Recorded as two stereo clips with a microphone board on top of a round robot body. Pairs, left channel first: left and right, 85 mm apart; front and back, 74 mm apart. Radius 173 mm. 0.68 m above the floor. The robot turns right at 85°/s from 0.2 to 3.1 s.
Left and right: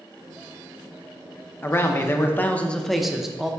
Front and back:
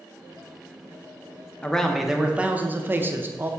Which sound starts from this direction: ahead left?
A man speaking, at 1.6 s.